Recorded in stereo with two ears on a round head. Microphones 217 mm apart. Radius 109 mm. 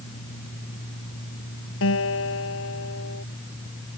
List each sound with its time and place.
1.8 s a guitar: 55° left (ahead or behind)